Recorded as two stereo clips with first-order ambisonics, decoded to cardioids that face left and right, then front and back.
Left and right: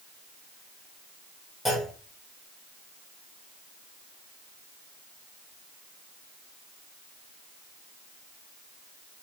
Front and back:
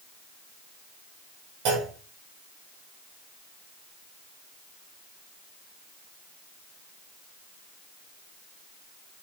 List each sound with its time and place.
1.6 s a clunk: straight behind, 3 m